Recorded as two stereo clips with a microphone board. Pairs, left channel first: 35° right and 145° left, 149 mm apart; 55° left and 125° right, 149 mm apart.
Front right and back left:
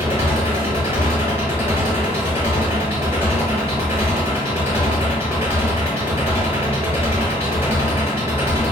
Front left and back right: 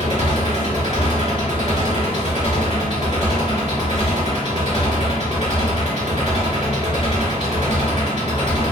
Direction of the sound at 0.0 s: 80° left.